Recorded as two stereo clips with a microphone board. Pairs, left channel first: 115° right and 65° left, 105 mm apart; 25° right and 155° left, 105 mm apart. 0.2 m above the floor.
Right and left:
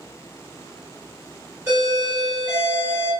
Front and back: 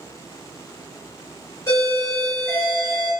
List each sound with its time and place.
1.7 s a doorbell: straight ahead, 1.8 m